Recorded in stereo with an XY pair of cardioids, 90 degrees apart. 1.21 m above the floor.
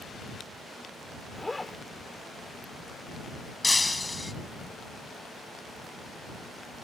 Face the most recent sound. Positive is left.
turn(degrees=15)